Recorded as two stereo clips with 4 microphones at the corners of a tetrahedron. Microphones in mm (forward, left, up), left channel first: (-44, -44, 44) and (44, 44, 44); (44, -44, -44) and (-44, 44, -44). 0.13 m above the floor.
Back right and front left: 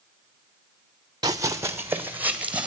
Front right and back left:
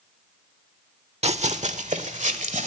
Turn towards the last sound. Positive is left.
turn(degrees=125)